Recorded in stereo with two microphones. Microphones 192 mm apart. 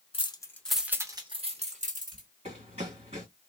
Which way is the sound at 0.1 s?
30° left (ahead or behind).